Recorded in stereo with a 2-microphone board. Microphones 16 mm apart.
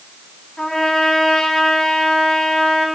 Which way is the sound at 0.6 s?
60° left (ahead or behind).